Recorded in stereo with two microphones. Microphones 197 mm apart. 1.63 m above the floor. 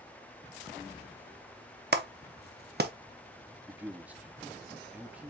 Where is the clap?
55° right (ahead or behind), 0.5 m.